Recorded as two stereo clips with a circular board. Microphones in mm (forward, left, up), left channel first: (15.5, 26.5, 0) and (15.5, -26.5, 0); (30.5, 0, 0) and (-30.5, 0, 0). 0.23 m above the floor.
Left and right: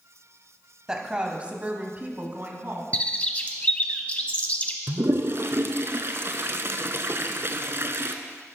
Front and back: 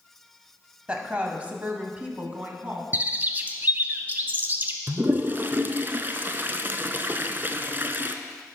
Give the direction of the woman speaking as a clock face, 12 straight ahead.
5 o'clock.